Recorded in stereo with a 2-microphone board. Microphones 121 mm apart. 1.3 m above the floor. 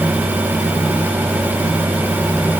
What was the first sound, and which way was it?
Only background noise.